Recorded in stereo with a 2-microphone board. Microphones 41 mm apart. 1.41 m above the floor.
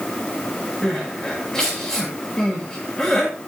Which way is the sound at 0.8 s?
10° left (ahead or behind).